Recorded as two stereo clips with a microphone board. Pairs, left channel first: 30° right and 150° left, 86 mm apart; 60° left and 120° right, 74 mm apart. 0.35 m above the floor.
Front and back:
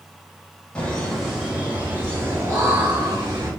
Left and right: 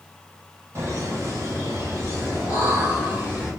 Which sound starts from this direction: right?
Laughter, at 0.8 s.